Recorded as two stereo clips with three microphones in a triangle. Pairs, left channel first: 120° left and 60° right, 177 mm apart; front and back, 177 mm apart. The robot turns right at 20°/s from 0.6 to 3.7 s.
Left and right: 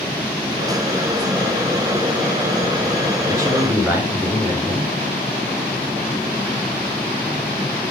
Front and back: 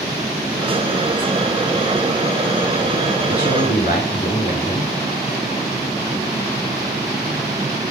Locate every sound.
3.3 s a man speaking: 5° left, 3 m; by 4.9 s 15° left, 3 m